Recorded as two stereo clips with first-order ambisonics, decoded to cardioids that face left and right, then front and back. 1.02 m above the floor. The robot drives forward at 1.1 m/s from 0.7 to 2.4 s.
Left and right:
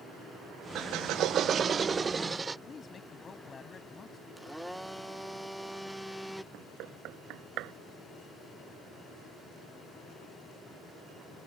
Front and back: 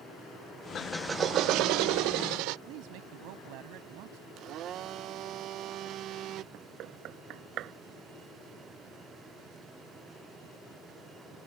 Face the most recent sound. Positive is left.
turn(degrees=-130)